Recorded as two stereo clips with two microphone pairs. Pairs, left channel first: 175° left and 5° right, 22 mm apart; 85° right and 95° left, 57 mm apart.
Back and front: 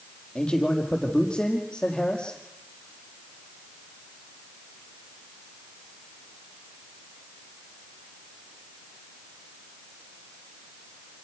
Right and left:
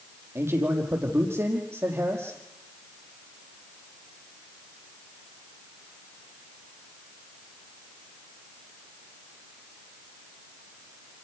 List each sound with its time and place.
0.3 s a man speaking: 130° left, 5.5 m